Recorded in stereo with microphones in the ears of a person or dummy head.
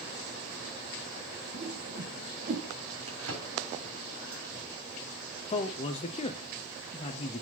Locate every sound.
1.5 s a whoosh: 40° right (ahead or behind), 1.3 m
3.1 s a drawer: 70° right (ahead or behind), 3 m
5.5 s a man speaking: 30° left (ahead or behind), 0.6 m